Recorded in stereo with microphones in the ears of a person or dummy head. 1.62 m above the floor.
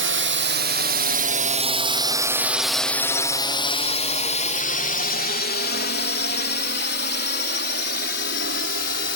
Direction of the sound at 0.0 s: 60° right (ahead or behind).